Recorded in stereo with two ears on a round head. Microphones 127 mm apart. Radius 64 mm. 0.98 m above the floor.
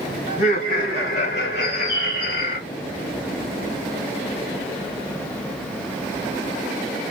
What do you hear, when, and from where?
0.3 s laughter: 80° left, 3.5 m; by 2.6 s 75° left (ahead or behind), 2.5 m
1.6 s a bird: 75° left (ahead or behind), 1.8 m